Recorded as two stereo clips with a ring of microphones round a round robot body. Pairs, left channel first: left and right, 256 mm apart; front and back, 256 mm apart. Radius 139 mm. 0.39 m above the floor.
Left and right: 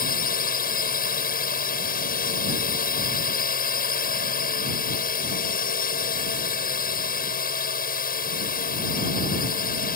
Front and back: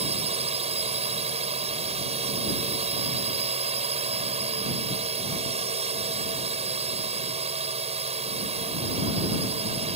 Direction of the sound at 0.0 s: 125° left.